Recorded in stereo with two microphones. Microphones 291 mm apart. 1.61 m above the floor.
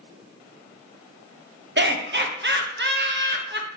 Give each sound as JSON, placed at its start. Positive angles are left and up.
{"t": 1.8, "sound": "laughter", "side_deg": -40, "distance_m": 0.6}